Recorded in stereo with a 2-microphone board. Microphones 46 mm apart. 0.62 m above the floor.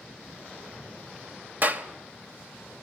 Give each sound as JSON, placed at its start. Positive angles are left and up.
{"t": 1.6, "sound": "a clap", "side_deg": -50, "distance_m": 2.0}